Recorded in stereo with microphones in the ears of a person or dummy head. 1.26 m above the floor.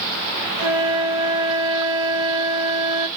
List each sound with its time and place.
0.6 s a flute: 15° right (ahead or behind), 1.4 m